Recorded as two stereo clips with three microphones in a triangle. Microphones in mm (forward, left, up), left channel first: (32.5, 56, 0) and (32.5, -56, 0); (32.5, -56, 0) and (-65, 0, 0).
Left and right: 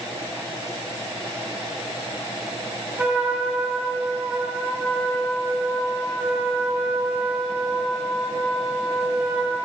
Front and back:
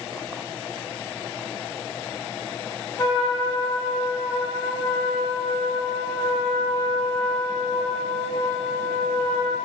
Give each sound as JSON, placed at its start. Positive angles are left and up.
{"t": 3.0, "sound": "a trumpet", "azimuth_deg": -20, "distance_m": 0.8}